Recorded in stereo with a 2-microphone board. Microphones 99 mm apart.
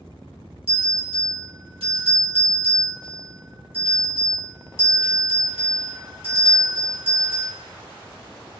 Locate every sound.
0.7 s a bell: 70° right (ahead or behind), 1.7 m